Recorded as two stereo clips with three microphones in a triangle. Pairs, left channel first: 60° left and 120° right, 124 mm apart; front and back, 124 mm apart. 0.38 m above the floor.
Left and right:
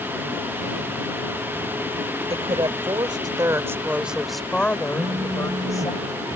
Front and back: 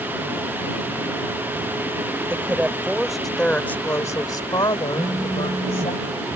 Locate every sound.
2.3 s a woman speaking: 110° right; by 5.9 s 10° left
4.9 s a phone buzzing: 120° right